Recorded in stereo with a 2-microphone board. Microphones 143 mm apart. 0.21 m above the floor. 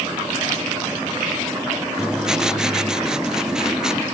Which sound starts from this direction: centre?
Writing, at 2.0 s.